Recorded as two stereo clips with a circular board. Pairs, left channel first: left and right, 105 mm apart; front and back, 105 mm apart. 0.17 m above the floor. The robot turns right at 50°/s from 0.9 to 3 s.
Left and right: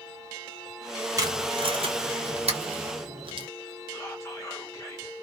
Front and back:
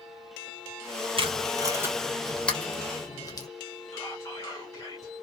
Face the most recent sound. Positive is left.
turn(degrees=40)